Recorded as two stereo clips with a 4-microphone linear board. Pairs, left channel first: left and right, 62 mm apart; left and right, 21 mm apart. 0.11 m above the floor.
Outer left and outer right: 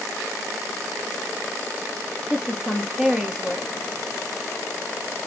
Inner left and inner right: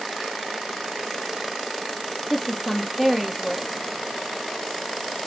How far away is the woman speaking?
About 2 m.